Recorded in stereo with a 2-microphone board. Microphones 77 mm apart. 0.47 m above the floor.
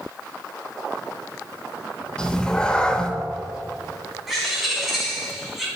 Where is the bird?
5° right (ahead or behind), 2.5 m.